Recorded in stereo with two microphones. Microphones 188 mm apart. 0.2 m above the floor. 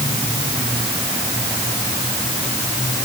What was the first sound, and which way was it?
Only background noise.